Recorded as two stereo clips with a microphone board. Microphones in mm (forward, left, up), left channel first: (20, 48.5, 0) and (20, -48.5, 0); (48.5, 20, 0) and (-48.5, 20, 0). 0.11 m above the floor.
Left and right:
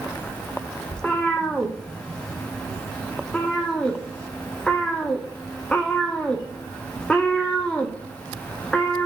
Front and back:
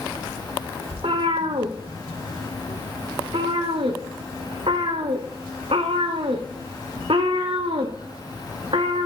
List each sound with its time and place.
0.9 s a cat meowing: 170° left, 1.1 m